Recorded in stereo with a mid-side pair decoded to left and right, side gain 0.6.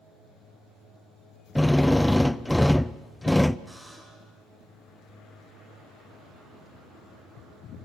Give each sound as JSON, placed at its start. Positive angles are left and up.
{"t": 1.6, "sound": "a drill", "azimuth_deg": 5, "distance_m": 0.5}
{"t": 3.7, "sound": "a buzzer", "azimuth_deg": -5, "distance_m": 6.0}